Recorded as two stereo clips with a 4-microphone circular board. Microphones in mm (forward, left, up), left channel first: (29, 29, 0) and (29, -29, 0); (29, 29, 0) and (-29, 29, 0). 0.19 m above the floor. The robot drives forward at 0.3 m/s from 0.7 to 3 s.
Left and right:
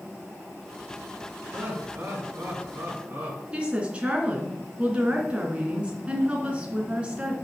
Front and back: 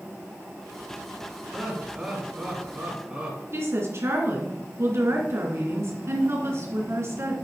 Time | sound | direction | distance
1.5 | laughter | 95° right | 2 m
3.5 | a woman speaking | 155° right | 2.5 m